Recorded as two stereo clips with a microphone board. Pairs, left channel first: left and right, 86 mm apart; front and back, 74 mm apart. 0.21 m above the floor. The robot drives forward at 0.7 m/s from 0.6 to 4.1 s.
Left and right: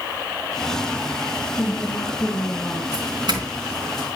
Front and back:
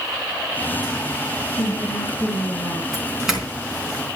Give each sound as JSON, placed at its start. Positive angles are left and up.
{"t": 1.6, "sound": "a woman speaking", "azimuth_deg": 15, "distance_m": 2.5}
{"t": 2.9, "sound": "a doorbell", "azimuth_deg": -95, "distance_m": 3.5}